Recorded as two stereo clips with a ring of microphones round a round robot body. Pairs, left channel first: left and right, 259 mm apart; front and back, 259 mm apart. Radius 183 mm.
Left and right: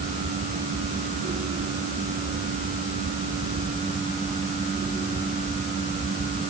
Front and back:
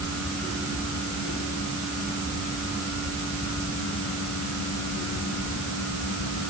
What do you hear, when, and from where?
Only background noise.